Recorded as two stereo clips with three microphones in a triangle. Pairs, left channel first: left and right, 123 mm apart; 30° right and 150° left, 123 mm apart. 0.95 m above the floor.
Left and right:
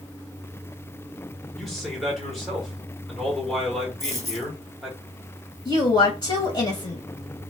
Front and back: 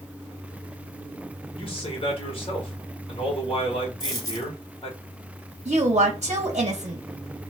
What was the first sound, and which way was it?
A man speaking, straight ahead.